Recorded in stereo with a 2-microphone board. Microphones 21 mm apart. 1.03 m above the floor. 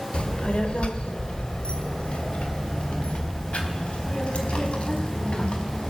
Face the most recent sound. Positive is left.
turn(degrees=65)  # may be behind; listen again after turning